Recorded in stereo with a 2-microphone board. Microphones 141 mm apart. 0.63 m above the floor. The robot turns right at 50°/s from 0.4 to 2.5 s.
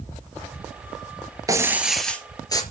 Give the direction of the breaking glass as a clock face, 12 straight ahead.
1 o'clock.